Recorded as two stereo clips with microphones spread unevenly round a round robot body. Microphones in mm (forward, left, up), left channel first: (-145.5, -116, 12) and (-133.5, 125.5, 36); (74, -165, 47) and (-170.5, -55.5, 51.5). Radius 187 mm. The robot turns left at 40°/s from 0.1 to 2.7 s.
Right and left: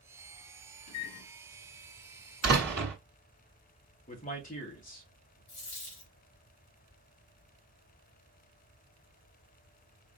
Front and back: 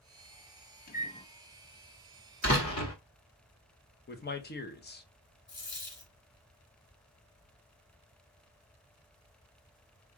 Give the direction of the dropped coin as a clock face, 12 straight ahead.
2 o'clock.